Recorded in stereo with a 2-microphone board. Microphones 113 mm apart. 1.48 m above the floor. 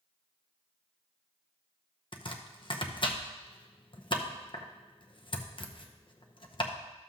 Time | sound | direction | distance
2.1 | chopping | 50° left (ahead or behind) | 0.7 m